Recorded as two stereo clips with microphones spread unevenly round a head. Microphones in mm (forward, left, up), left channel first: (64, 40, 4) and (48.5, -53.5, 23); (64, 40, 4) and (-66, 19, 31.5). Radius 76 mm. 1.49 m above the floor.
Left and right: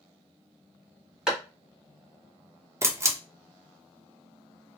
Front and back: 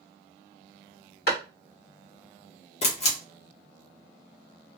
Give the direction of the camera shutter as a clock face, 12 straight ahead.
1 o'clock.